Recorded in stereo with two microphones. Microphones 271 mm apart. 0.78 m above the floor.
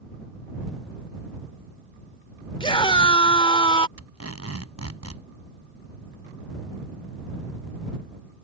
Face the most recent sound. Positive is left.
turn(degrees=-65)  # may be behind; listen again after turning